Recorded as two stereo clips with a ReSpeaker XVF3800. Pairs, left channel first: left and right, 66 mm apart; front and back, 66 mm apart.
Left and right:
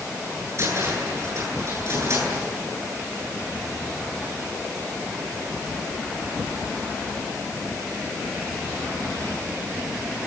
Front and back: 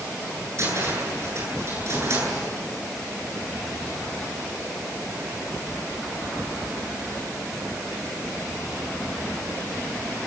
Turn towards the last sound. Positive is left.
turn(degrees=-135)